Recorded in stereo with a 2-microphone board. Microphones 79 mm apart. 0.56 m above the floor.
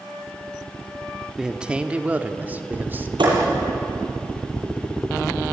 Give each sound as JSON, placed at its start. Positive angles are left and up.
{"t": 1.4, "sound": "a man speaking", "side_deg": -10, "distance_m": 1.3}
{"t": 3.2, "sound": "a thud", "side_deg": -90, "distance_m": 8.5}